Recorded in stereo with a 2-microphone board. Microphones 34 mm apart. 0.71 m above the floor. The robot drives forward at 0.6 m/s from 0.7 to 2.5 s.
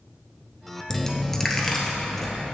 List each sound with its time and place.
0.9 s a dropped coin: 15° left (ahead or behind), 0.8 m; by 2.3 s 10° left (ahead or behind), 1.6 m